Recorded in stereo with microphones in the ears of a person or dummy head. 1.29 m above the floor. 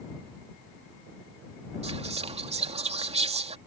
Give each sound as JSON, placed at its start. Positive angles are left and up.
{"t": 1.8, "sound": "whispering", "side_deg": -30}